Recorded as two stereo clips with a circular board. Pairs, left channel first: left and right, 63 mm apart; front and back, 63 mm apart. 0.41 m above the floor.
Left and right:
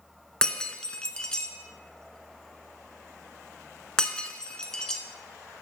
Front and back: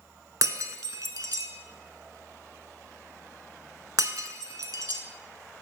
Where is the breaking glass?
165° left, 0.7 m.